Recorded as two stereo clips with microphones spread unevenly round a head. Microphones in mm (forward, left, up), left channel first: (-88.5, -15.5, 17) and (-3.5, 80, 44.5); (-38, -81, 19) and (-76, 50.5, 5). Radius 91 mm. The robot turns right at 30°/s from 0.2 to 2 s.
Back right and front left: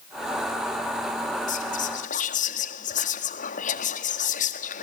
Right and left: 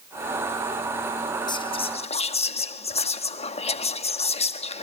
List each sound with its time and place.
1.5 s whispering: 135° right, 1.7 m; by 4.8 s 115° right, 1.7 m